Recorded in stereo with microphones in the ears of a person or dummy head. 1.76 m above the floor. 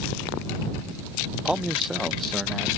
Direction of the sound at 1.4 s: 5° right (ahead or behind).